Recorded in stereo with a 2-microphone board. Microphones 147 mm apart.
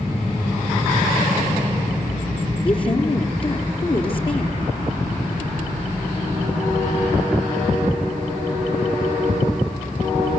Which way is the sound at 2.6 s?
40° left (ahead or behind).